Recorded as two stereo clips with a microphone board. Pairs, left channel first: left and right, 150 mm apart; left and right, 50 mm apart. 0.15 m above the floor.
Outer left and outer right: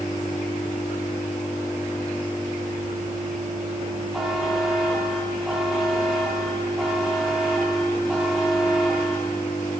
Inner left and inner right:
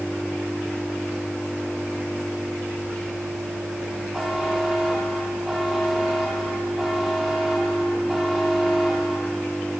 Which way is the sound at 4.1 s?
5° right (ahead or behind).